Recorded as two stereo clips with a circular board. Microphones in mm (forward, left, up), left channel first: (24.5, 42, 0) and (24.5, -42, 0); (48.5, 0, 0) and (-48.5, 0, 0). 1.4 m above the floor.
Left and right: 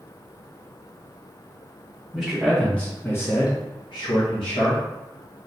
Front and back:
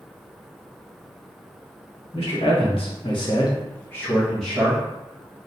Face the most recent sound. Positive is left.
turn(degrees=105)